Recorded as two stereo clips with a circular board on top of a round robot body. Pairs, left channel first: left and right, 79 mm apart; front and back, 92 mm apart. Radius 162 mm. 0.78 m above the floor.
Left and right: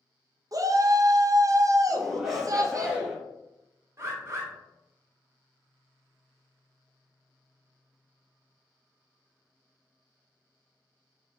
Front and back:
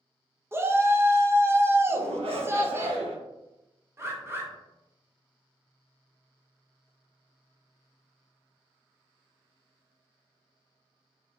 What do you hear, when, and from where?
0.5 s a shout: 120° right, 0.8 m
1.9 s a shout: 175° right, 1.3 m
4.0 s a bird: 130° right, 1.3 m